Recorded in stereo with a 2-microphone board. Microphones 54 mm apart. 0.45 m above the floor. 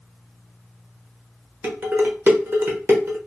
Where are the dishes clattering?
45° right (ahead or behind), 0.8 m.